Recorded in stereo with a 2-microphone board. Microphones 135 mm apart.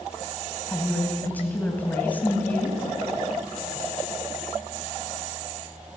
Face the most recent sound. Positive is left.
turn(degrees=15)  # may be behind; listen again after turning